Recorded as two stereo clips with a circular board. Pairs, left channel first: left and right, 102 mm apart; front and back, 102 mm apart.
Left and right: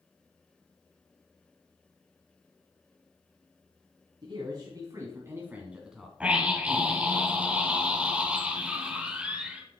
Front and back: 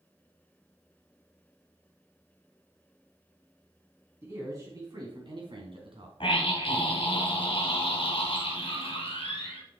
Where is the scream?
15° right, 1.8 m.